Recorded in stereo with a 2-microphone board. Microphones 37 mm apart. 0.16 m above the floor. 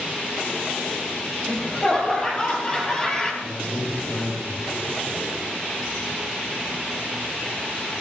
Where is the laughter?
25° left (ahead or behind), 5 m; by 3.3 s 15° left (ahead or behind), 4 m.